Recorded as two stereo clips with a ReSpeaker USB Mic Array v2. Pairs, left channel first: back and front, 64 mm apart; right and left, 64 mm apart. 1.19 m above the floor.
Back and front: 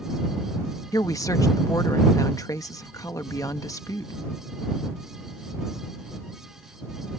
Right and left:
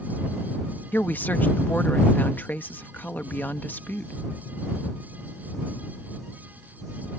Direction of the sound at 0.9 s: 150° right.